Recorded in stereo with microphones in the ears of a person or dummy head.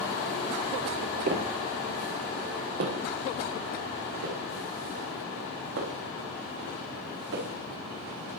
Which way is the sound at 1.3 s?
35° right (ahead or behind).